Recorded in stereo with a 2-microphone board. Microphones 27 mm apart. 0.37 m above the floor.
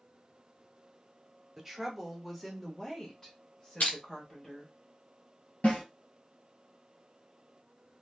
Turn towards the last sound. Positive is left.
turn(degrees=75)  # may be behind; listen again after turning